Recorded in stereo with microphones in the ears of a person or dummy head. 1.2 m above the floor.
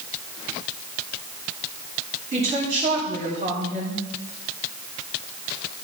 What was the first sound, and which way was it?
A woman speaking, 40° right (ahead or behind).